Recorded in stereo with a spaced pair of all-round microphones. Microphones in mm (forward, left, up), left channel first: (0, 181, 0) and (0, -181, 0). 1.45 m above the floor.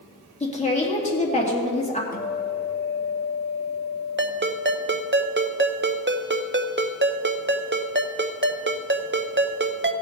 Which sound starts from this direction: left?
A guitar, at 2.1 s.